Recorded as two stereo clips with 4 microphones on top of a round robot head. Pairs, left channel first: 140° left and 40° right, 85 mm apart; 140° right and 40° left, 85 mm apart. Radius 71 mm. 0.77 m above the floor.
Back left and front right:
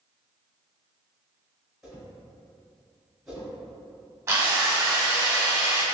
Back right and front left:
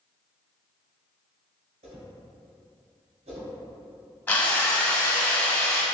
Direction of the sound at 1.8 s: 45° left.